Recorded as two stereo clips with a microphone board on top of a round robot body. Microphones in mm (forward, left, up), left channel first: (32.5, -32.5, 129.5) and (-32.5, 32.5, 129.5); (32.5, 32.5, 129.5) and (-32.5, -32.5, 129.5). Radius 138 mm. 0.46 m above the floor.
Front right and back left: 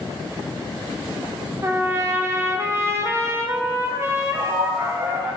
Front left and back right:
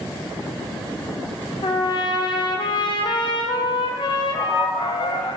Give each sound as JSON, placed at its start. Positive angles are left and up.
{"t": 1.6, "sound": "a trumpet", "azimuth_deg": 75, "distance_m": 0.9}
{"t": 4.3, "sound": "a man speaking", "azimuth_deg": 115, "distance_m": 2.5}